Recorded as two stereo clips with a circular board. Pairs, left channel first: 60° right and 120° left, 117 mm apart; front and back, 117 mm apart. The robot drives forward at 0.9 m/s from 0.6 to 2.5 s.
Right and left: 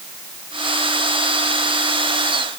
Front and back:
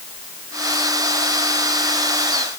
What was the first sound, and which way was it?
Only background noise.